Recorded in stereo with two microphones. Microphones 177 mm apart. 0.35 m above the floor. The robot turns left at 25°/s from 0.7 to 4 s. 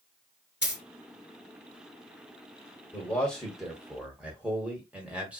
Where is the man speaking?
10° left (ahead or behind), 1.0 m; by 5.4 s 5° right (ahead or behind), 1.0 m.